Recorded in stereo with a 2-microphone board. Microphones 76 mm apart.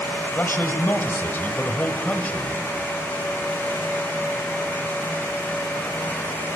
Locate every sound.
0.3 s a man speaking: 30° left (ahead or behind), 1.5 m; by 2.6 s 20° left (ahead or behind), 1.5 m